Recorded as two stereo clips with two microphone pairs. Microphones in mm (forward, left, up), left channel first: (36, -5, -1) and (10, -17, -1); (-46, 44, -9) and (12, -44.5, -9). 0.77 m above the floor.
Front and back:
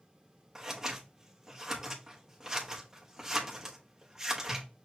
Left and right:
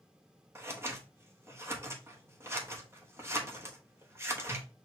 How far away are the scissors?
About 1.0 m.